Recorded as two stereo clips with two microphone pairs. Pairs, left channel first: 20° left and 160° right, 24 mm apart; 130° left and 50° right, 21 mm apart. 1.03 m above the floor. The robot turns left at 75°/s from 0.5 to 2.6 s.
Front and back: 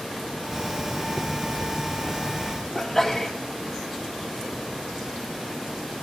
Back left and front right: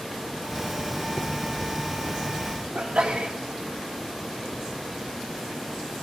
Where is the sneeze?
65° right, 2.5 m.